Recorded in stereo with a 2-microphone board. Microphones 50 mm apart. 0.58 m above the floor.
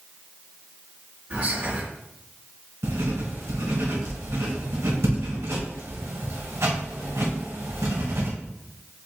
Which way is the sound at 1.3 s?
45° right (ahead or behind).